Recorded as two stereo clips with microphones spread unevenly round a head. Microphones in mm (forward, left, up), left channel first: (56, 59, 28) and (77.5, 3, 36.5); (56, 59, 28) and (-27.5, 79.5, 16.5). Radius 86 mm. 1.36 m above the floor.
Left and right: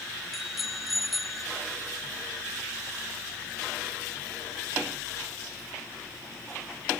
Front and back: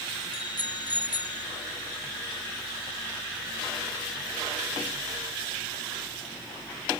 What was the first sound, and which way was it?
A bicycle bell, 20° left.